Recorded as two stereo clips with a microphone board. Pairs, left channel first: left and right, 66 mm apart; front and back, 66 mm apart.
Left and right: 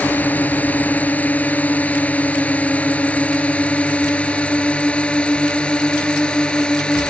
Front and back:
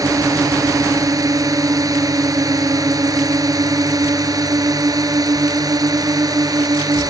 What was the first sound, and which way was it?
A drone, 155° left.